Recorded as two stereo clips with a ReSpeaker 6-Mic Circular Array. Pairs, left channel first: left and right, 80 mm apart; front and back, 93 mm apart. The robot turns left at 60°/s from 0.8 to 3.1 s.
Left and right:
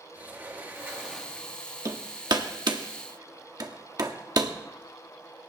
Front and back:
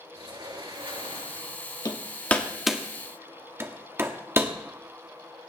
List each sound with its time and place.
0.1 s a sliding door: 155° right, 3.5 m; by 1.6 s 155° left, 3.5 m
1.9 s hammering: 45° right, 1.5 m; by 4.5 s 120° right, 1.5 m